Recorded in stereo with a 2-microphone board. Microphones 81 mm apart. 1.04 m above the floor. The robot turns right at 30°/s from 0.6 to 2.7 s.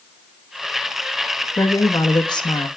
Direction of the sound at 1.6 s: 40° left.